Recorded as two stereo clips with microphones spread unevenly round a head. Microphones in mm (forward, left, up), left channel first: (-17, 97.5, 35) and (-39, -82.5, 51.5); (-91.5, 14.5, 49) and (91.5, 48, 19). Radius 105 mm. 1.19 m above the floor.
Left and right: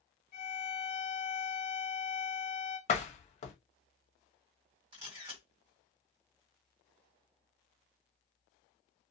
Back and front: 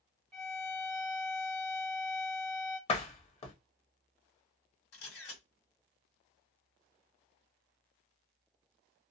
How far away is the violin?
About 0.7 m.